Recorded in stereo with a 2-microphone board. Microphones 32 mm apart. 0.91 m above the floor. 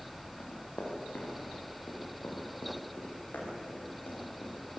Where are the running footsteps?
80° left, 7.5 m.